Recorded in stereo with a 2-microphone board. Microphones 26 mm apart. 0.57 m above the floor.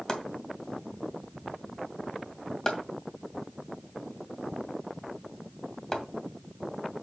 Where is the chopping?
25° left (ahead or behind), 2 m.